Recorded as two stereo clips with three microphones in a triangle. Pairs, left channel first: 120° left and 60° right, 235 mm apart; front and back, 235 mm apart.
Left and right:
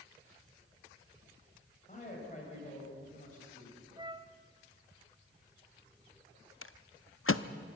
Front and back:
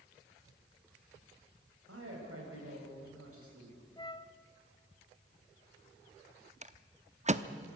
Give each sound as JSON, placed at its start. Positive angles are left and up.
{"t": 1.9, "sound": "a man speaking", "azimuth_deg": 175, "distance_m": 6.5}
{"t": 4.0, "sound": "a flute", "azimuth_deg": -30, "distance_m": 0.6}
{"t": 6.6, "sound": "a rattle", "azimuth_deg": 125, "distance_m": 0.7}